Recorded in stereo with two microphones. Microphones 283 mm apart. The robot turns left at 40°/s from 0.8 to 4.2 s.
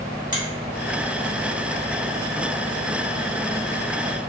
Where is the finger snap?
30° left (ahead or behind), 1.1 m.